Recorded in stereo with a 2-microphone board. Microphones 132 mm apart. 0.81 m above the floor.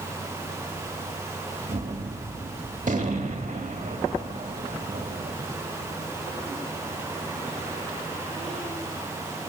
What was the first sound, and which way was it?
A gunshot, 70° right (ahead or behind).